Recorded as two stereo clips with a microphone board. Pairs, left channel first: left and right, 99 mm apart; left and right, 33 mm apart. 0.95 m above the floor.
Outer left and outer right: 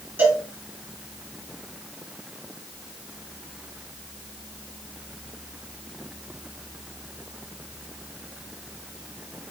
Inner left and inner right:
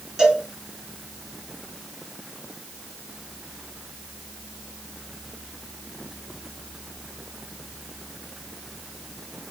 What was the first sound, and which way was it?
A cowbell, 20° right (ahead or behind).